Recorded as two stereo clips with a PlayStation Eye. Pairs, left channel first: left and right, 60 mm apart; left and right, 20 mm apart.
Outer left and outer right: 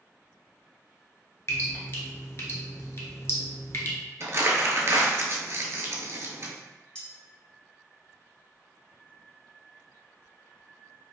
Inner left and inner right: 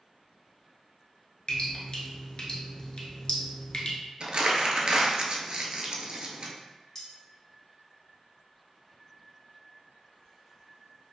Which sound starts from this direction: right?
Crumpling, at 4.2 s.